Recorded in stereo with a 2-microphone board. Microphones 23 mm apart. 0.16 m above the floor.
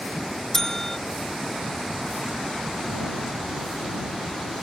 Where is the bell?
20° left (ahead or behind).